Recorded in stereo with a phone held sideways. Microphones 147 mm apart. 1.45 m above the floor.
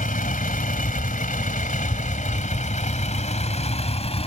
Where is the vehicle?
70° left (ahead or behind); by 4.3 s 45° left (ahead or behind).